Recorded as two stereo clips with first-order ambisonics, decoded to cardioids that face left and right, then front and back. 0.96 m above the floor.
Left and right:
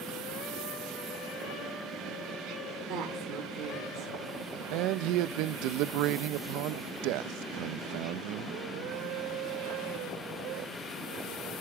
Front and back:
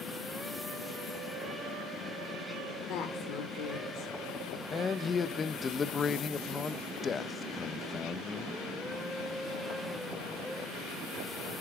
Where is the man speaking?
70° right, 0.5 m.